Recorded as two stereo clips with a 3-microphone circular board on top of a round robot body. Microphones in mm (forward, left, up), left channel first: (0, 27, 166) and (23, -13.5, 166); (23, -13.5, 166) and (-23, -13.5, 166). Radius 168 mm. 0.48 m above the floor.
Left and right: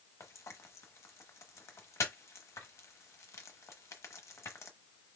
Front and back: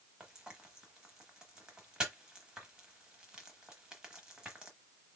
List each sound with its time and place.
0.2 s frying: 105° left, 0.9 m